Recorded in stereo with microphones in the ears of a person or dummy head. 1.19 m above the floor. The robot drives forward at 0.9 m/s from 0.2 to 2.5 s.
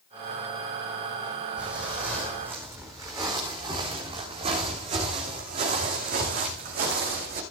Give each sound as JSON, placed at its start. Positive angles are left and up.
{"t": 1.6, "sound": "footsteps", "side_deg": -5, "distance_m": 3.0}